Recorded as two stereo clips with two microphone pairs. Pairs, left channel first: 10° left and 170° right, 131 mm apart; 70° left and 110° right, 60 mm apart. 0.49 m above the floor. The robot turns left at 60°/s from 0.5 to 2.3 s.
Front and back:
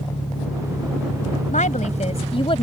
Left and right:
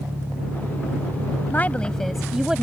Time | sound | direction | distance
0.0 | an engine running | 55° right | ?
1.5 | a woman speaking | 15° left | ?